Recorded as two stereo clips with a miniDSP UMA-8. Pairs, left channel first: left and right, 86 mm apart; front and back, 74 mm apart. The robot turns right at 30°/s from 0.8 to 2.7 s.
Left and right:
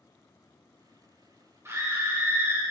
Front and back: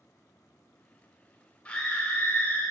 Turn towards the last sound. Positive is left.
turn(degrees=-30)